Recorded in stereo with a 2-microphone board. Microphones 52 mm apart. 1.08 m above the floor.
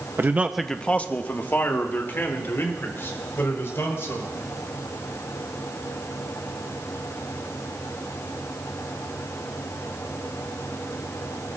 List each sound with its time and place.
0.2 s a man speaking: 40° right (ahead or behind), 0.7 m; by 4.3 s 50° left (ahead or behind), 5.5 m